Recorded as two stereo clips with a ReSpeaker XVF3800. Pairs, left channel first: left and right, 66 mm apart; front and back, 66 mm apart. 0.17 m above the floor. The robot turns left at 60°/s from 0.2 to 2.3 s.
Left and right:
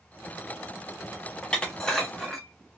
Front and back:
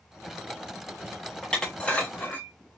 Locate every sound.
1.4 s dishes clattering: 60° left, 0.7 m; by 2.5 s 5° left, 0.7 m